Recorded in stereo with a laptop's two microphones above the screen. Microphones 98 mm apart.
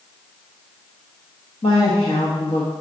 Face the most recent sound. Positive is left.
turn(degrees=80)